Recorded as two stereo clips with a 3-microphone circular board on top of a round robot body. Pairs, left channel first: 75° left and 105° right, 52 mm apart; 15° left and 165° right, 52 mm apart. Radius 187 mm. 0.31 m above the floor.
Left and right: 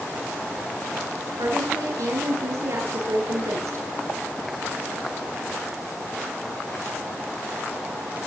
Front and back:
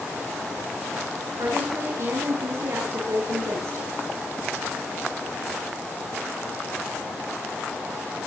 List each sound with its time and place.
1.4 s a woman speaking: 130° right, 8.5 m